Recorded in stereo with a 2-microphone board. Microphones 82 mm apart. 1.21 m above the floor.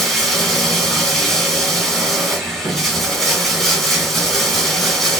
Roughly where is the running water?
Centre.